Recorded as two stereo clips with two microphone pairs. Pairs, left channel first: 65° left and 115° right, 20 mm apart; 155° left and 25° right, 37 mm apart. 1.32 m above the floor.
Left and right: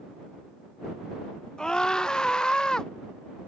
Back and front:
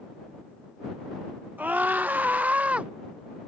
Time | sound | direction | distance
1.6 | a scream | 15° left | ?